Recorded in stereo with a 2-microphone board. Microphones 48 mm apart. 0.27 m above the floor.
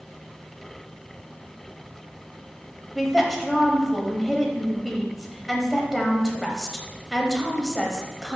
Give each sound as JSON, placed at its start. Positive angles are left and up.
{"t": 3.0, "sound": "a woman speaking", "side_deg": 0, "distance_m": 1.1}